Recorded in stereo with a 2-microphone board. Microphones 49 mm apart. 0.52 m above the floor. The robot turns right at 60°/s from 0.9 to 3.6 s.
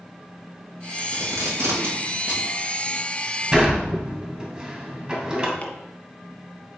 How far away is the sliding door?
About 2.5 m.